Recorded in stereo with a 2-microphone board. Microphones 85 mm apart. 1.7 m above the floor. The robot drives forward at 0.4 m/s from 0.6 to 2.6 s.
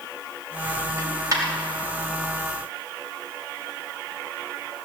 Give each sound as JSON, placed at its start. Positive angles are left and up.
{"t": 1.0, "sound": "a dropped coin", "side_deg": -45, "distance_m": 3.5}